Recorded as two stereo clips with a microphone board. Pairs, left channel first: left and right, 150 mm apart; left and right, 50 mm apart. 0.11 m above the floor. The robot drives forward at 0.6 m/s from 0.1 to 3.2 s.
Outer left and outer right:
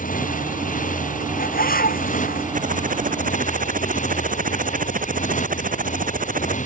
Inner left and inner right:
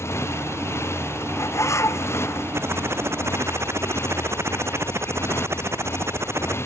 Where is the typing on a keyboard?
60° right (ahead or behind); by 6.6 s 65° right (ahead or behind).